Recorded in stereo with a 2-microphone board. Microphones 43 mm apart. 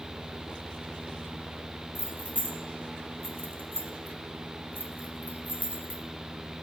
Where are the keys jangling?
35° right (ahead or behind), 1.6 m; by 6.0 s 30° right (ahead or behind), 1.7 m.